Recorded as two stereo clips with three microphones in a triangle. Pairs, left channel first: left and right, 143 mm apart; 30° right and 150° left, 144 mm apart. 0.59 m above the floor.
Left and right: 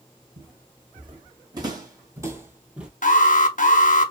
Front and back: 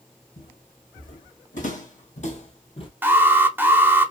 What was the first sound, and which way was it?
Footsteps, 40° right.